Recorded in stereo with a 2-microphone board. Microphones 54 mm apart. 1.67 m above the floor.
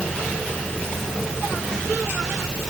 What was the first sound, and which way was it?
Only background noise.